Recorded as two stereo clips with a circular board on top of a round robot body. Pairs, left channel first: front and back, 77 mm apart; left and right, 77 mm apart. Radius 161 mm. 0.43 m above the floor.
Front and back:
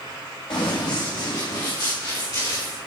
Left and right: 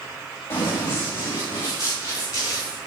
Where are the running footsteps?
30° left, 7 m; by 2.8 s 40° left, 9 m.